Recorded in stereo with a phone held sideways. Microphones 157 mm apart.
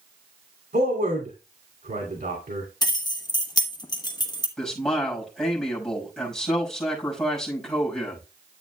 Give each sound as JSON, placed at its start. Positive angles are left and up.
{"t": 0.7, "sound": "a man speaking", "side_deg": -80, "distance_m": 2.5}
{"t": 2.8, "sound": "keys jangling", "side_deg": 25, "distance_m": 1.1}
{"t": 4.6, "sound": "a man speaking", "side_deg": 5, "distance_m": 5.5}